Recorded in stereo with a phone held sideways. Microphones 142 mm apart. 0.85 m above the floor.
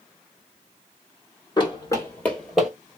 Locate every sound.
1.6 s running footsteps: 30° left (ahead or behind), 1.4 m; by 2.7 s 5° right (ahead or behind), 1.3 m